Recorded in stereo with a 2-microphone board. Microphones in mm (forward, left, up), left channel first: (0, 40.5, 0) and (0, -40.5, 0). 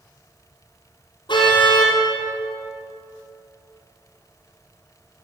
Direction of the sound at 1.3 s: 75° left (ahead or behind).